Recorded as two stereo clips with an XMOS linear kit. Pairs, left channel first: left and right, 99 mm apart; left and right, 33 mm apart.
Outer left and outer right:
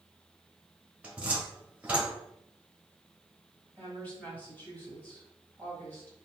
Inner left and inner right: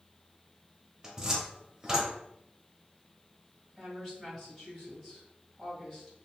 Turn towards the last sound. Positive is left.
turn(degrees=15)  # may be behind; listen again after turning